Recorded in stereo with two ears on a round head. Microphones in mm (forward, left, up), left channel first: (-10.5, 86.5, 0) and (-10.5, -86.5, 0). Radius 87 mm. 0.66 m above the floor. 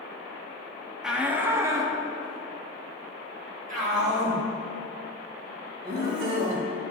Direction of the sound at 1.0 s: 5° right (ahead or behind).